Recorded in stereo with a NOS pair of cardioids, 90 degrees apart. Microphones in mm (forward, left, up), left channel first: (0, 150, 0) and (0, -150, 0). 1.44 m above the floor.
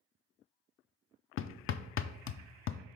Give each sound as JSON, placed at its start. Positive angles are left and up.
{"t": 1.4, "sound": "hammering", "azimuth_deg": 45, "distance_m": 0.5}